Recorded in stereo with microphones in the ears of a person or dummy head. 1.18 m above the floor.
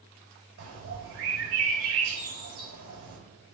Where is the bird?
85° right, 4.5 m.